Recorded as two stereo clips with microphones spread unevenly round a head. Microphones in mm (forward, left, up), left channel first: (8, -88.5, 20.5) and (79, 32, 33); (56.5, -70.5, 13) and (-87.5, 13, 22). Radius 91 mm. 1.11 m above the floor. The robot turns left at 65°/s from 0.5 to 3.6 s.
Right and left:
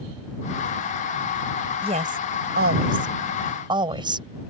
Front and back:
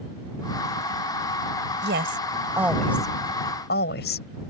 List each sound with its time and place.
1.8 s a woman speaking: 120° left; by 4.3 s 5° left